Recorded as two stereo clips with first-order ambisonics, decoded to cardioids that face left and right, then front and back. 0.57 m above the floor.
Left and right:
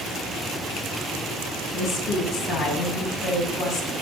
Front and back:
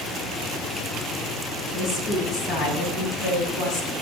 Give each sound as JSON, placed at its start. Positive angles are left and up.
{"t": 1.7, "sound": "a woman speaking", "azimuth_deg": 50, "distance_m": 4.0}